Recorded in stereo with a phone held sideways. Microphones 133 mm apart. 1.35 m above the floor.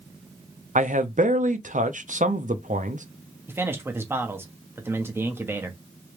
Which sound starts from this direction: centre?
A man speaking, at 3.5 s.